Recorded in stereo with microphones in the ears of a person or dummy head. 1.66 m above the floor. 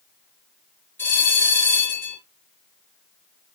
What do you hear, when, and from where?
1.0 s a bell: 10° left (ahead or behind), 5 m